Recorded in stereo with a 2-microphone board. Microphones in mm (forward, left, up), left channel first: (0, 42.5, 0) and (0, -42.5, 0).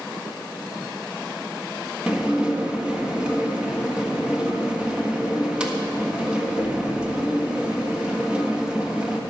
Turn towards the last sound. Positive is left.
turn(degrees=-10)  # may be behind; listen again after turning